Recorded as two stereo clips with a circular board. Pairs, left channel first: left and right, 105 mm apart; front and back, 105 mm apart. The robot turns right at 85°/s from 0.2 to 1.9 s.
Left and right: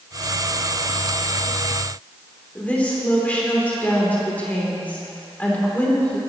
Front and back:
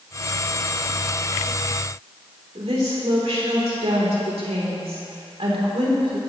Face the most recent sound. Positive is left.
turn(degrees=165)